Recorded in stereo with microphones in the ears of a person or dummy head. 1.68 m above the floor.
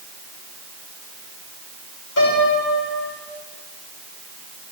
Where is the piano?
75° left (ahead or behind), 6 m.